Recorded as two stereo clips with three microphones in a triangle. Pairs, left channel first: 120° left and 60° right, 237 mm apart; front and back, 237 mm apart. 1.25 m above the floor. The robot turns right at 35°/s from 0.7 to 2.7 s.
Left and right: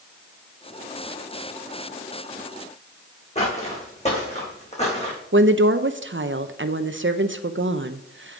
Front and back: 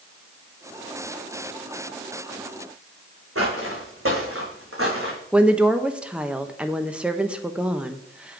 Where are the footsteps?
Straight behind, 4 m.